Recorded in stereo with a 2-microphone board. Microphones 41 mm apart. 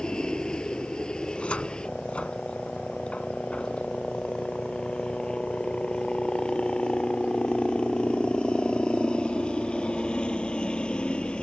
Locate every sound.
0.0 s a helicopter: 20° left (ahead or behind); by 11.4 s 25° left (ahead or behind)
1.2 s a cupboard door: 30° left (ahead or behind)